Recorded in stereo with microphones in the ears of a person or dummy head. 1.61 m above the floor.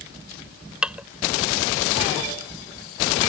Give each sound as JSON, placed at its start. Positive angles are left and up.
{"t": 0.8, "sound": "dishes clattering", "side_deg": -5}